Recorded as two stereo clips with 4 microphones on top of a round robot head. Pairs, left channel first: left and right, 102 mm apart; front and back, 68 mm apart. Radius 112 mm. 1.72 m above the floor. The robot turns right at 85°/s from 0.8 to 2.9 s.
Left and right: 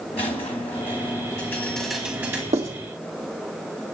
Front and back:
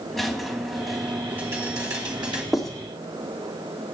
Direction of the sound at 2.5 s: 95° right.